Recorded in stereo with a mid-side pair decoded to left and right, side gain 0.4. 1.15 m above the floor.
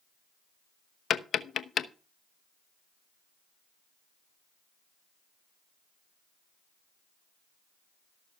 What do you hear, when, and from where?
1.1 s tapping: 55° left, 0.9 m